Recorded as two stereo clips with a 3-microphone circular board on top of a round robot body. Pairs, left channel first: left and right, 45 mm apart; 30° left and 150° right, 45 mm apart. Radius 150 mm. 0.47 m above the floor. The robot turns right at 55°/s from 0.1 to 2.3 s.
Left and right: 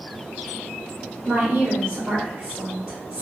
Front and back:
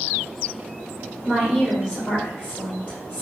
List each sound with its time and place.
1.2 s a woman speaking: 80° right, 2.0 m; by 3.2 s 20° right, 2.0 m